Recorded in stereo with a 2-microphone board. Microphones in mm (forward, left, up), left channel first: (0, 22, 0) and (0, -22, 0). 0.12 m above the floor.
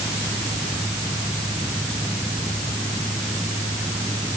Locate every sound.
Only background noise.